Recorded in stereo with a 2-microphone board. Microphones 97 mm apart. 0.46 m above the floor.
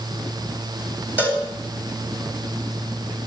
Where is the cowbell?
15° right (ahead or behind), 3 m.